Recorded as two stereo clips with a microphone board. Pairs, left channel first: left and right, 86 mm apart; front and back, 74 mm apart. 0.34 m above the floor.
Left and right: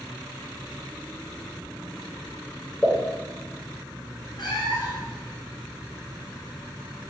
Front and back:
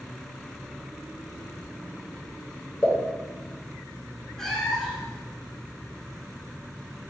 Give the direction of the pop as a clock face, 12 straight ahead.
11 o'clock.